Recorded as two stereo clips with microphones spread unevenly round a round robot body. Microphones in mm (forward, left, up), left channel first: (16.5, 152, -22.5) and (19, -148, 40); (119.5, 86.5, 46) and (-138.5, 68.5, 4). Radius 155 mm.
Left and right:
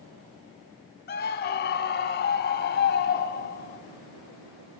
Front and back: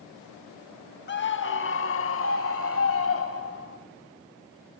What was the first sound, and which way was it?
A scream, 50° left.